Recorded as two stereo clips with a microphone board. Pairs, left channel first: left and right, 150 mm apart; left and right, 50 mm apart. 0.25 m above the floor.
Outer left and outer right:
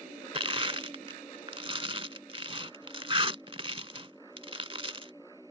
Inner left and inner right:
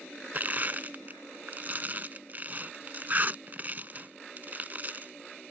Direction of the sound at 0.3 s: 40° right (ahead or behind).